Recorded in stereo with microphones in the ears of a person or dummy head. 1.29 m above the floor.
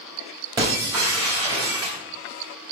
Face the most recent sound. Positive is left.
turn(degrees=-25)  # may be behind; listen again after turning